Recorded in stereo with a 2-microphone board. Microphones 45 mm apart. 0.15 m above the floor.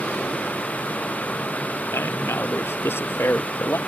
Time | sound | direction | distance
1.9 | a man speaking | 65° left (ahead or behind) | ?